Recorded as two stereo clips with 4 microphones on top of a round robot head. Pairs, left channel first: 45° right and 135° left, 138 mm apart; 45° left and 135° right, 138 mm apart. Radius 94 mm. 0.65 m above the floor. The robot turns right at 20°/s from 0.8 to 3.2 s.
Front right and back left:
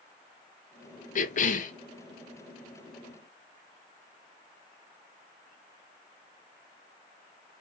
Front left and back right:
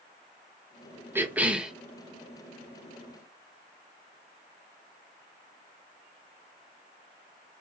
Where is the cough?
60° right, 1.1 m; by 1.7 s 50° right, 1.1 m.